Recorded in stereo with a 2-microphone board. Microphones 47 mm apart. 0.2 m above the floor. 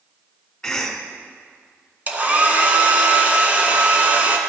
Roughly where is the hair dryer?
Right.